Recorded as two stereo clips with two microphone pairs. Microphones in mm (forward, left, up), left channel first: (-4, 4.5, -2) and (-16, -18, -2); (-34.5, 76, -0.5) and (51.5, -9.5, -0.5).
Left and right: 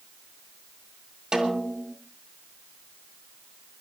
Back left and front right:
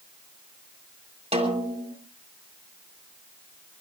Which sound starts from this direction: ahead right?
A snare drum, at 1.3 s.